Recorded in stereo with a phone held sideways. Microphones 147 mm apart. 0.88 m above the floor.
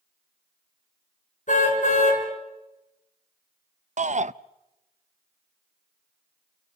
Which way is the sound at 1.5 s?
55° left (ahead or behind).